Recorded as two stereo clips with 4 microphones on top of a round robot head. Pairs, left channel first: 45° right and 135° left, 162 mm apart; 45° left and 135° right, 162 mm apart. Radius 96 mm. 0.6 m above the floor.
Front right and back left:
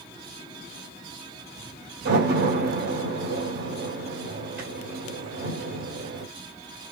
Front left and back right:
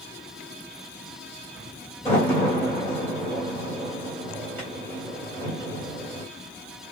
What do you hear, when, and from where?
2.0 s a door slam: 120° left, 3.5 m